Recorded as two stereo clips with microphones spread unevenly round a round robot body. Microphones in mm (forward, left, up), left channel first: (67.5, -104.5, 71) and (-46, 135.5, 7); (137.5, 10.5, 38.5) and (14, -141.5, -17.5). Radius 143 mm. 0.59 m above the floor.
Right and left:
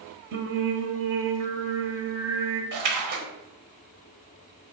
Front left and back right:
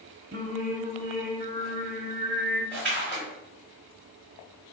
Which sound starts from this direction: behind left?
A splash, at 2.7 s.